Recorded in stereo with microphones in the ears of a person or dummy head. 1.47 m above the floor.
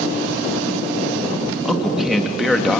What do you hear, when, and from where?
1.6 s a man speaking: 5° right (ahead or behind), 2.0 m